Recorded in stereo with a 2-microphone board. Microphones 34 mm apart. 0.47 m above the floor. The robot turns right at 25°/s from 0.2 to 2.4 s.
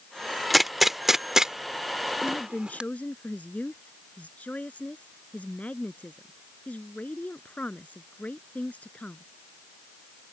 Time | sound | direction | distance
0.5 | a gunshot | centre (ahead or behind) | ?
2.2 | a woman speaking | 45° left (ahead or behind) | ?